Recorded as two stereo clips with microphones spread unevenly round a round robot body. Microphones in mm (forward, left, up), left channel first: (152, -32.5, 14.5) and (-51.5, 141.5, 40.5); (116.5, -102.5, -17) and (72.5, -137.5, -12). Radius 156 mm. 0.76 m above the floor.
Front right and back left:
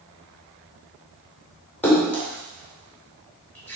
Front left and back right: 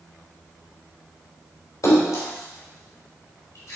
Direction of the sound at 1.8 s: 40° left.